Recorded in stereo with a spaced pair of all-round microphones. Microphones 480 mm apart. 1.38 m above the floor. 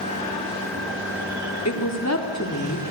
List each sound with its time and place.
1.6 s a woman speaking: 35° left (ahead or behind), 3.5 m